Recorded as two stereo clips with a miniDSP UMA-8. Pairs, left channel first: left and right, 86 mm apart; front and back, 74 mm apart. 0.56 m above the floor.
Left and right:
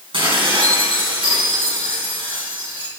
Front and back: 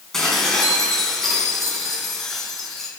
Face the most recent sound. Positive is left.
turn(degrees=-85)